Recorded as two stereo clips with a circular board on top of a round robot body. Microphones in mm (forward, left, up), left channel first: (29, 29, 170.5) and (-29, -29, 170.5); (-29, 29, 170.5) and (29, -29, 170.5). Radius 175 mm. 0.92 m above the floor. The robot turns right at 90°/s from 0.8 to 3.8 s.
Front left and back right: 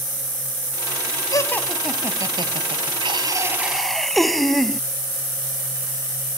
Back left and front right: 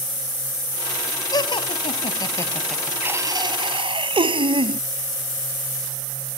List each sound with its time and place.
1.3 s laughter: 95° left; by 4.8 s 45° right